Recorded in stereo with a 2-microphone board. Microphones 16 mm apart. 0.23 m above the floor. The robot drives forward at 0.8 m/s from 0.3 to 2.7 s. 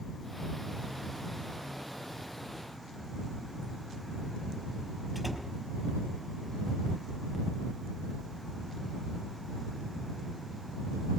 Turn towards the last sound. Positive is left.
turn(degrees=-15)  # may be behind; listen again after turning